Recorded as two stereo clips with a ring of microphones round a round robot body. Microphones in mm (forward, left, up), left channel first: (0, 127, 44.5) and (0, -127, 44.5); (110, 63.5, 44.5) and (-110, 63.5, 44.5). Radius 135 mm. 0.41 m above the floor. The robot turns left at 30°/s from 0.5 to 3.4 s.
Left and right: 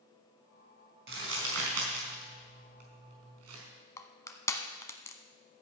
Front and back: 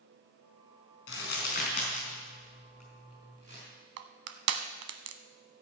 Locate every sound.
1.1 s crumpling: 45° right, 4 m; by 3.6 s 115° right, 4 m
4.0 s crushing: 170° left, 0.9 m